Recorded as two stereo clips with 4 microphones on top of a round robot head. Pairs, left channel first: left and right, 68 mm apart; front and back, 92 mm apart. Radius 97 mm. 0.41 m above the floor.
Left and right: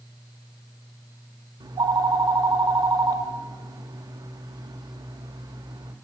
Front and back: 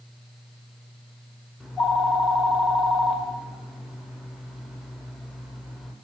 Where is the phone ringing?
95° right, 0.7 m.